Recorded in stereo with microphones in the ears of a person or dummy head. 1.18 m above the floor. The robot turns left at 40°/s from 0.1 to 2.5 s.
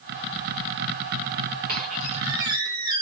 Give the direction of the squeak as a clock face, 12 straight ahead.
4 o'clock.